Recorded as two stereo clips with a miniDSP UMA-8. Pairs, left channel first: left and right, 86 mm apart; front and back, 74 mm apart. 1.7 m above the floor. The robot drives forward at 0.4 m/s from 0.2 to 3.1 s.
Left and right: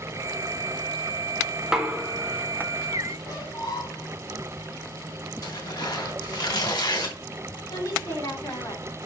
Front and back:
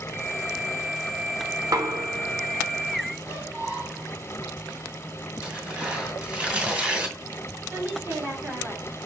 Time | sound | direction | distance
1.6 | knocking | 170° right | 0.8 m
3.2 | a squeak | 115° left | 3.5 m
5.4 | tearing paper | 110° left | 2.5 m
7.7 | a woman speaking | 120° left | 3.5 m